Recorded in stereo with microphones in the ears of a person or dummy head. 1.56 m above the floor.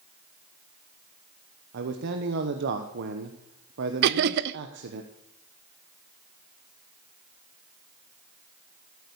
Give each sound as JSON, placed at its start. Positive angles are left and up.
{"t": 1.7, "sound": "a man speaking", "side_deg": -55, "distance_m": 1.0}
{"t": 4.0, "sound": "laughter", "side_deg": -50, "distance_m": 0.5}